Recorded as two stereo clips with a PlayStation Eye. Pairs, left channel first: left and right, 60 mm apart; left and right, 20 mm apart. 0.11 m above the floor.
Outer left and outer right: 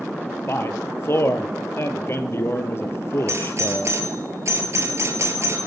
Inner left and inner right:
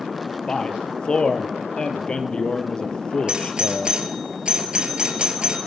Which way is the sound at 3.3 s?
45° right (ahead or behind).